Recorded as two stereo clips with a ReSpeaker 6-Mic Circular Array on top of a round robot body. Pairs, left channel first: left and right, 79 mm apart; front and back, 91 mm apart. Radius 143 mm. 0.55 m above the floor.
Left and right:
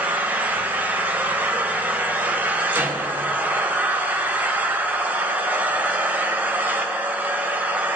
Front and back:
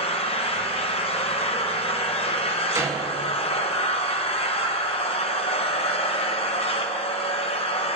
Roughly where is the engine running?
Ahead.